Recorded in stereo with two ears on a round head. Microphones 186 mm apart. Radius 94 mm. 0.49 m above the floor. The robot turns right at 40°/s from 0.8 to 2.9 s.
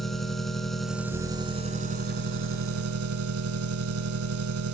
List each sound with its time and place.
0.0 s an engine running: straight behind, 1.2 m; by 4.7 s 95° right, 1.2 m